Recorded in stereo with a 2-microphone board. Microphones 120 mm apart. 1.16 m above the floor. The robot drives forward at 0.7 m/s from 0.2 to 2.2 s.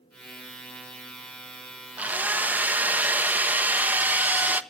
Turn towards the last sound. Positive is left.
turn(degrees=-15)  # may be behind; listen again after turning